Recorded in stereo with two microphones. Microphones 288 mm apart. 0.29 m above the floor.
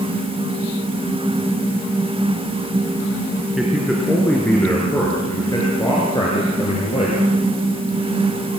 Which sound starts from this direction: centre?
A man speaking, at 3.6 s.